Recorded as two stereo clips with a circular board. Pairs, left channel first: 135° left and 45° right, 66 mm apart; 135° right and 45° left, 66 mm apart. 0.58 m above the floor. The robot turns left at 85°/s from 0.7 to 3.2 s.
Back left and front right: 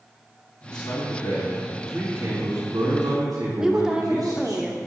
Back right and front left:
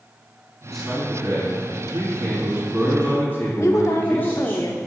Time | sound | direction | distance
0.7 | a man speaking | 140° left | 3.5 m
3.6 | a woman speaking | 125° right | 1.1 m